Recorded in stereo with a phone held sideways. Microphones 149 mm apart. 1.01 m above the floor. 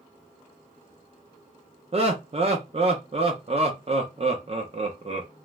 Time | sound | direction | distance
1.9 | laughter | 45° right (ahead or behind) | 0.6 m